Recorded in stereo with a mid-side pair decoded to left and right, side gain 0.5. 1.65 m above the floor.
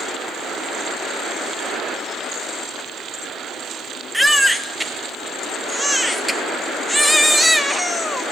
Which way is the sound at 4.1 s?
5° right.